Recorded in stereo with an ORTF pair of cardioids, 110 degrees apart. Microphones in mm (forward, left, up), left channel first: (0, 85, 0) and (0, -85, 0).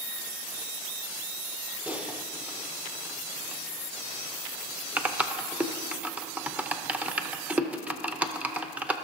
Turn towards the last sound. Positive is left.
turn(degrees=-10)